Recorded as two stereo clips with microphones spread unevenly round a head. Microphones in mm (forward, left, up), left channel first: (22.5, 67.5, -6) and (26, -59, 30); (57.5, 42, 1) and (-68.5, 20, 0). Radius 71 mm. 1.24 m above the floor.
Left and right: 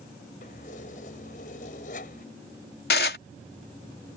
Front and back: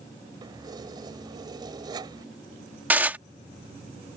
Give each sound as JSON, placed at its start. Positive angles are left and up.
{"t": 0.4, "sound": "keys jangling", "azimuth_deg": 130}
{"t": 2.9, "sound": "dishes clattering", "azimuth_deg": 115}